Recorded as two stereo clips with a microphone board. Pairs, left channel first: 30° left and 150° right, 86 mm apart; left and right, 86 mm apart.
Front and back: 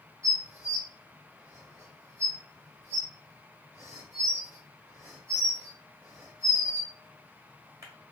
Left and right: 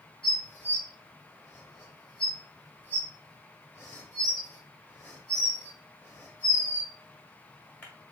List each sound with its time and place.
0.2 s dishes clattering: 155° left, 1.3 m